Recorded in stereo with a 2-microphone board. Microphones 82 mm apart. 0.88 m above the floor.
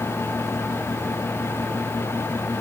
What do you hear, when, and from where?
Only background noise.